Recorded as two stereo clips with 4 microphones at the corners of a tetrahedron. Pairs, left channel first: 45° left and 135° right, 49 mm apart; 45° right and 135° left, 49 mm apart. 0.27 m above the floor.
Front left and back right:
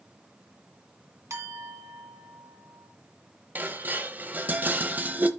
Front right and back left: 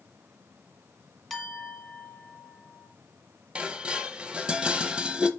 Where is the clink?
135° right, 2 m.